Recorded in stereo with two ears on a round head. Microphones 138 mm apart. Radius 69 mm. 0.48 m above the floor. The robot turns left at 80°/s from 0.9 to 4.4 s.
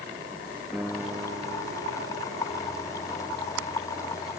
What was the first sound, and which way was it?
A piano, 5° right.